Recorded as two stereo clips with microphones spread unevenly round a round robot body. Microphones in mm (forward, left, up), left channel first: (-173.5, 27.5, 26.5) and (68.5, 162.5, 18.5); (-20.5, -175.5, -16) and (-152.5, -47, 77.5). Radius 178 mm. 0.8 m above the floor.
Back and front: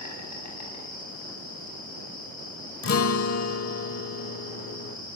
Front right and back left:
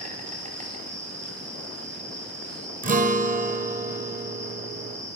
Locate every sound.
0.0 s an insect: 175° right, 7.5 m
2.8 s a guitar: 170° left, 1.2 m